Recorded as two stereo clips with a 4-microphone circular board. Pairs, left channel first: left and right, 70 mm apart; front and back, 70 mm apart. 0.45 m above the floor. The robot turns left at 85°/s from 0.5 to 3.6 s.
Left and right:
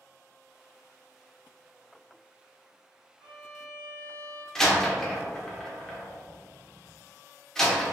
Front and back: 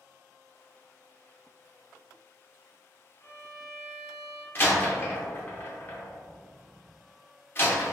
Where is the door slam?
15° left, 0.5 m.